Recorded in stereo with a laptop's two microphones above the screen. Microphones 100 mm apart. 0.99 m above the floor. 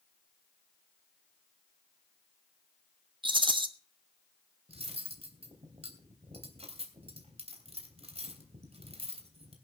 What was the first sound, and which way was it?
A rattle, 55° right (ahead or behind).